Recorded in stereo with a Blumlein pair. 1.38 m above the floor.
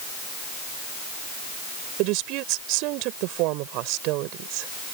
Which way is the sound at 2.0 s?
40° right.